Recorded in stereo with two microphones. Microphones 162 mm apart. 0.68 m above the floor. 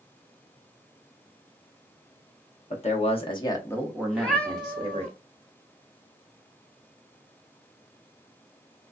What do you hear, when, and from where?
2.7 s a man speaking: 45° left (ahead or behind), 1.0 m; by 5.1 s 40° right (ahead or behind), 0.9 m
4.1 s a cat meowing: 5° left (ahead or behind), 0.7 m